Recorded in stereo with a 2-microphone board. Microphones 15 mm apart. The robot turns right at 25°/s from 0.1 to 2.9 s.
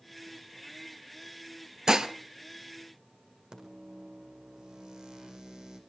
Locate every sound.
1.9 s dishes clattering: 50° right (ahead or behind), 1.4 m; by 2.1 s 45° right (ahead or behind), 1.4 m
3.5 s a microwave: 65° right (ahead or behind), 5 m